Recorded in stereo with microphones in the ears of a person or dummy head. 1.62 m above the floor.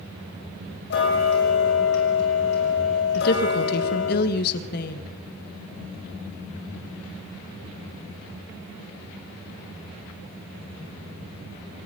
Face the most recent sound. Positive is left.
turn(degrees=55)  # may be behind; listen again after turning